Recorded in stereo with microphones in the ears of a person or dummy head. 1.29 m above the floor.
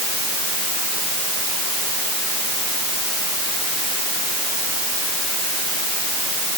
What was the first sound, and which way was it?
Only background noise.